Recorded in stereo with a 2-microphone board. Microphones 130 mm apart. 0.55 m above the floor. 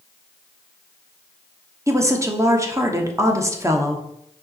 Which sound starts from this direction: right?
A woman speaking, at 1.9 s.